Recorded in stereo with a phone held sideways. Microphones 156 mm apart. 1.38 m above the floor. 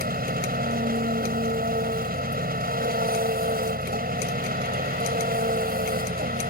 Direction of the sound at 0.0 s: 75° right (ahead or behind).